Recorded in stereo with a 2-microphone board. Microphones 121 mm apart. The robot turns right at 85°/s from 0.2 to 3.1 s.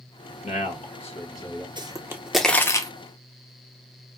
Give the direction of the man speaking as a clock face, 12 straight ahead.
10 o'clock.